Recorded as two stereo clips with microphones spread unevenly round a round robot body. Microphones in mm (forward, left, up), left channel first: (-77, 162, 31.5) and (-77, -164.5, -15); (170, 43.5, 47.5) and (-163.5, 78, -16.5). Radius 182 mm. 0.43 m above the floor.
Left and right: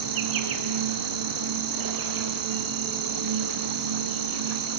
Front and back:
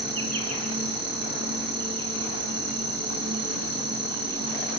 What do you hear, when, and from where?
0.0 s an insect: 110° right, 2.5 m